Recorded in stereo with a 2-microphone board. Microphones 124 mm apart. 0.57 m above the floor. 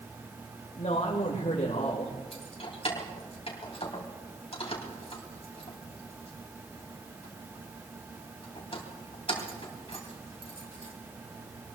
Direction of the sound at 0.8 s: 60° left (ahead or behind).